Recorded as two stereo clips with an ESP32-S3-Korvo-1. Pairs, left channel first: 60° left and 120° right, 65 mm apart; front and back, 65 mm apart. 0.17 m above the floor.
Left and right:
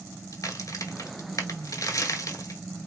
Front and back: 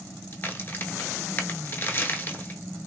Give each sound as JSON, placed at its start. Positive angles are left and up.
{"t": 0.3, "sound": "a crack", "azimuth_deg": 50, "distance_m": 0.7}